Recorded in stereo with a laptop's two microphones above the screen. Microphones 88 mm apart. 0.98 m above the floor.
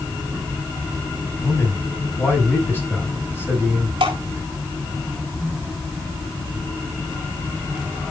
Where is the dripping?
80° right, 3.5 m.